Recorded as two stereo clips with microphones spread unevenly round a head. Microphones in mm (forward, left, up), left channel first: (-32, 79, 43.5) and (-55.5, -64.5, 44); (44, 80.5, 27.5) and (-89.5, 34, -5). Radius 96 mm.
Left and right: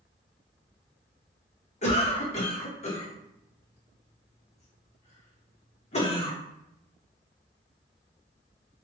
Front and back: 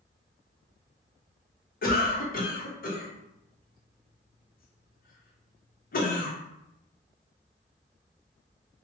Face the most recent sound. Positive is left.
turn(degrees=45)